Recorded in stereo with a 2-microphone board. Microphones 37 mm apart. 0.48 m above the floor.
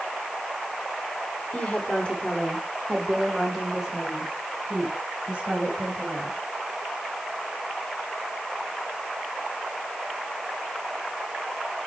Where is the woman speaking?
35° left (ahead or behind), 1.4 m; by 6.4 s 35° right (ahead or behind), 3 m.